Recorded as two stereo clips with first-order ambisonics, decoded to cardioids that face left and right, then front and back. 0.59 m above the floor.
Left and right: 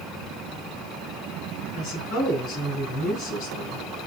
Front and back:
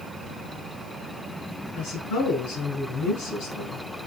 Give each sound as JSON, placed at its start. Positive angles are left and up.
{"t": 1.8, "sound": "a woman speaking", "azimuth_deg": 45, "distance_m": 5.5}